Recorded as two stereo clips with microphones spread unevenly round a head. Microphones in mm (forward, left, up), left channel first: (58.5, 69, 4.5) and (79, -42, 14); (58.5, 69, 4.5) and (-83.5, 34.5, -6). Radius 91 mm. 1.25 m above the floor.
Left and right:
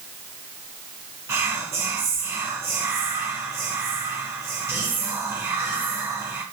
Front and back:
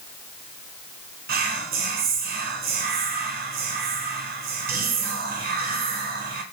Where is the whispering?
155° right, 0.6 m.